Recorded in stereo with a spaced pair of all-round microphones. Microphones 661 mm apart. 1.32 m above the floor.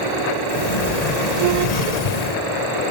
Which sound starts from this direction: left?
A sliding door, at 0.5 s.